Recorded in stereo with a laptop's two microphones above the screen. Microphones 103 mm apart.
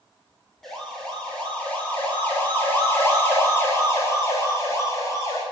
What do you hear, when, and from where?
0.6 s a siren: 5° left (ahead or behind), 3.5 m; by 5.4 s 35° left (ahead or behind), 5.5 m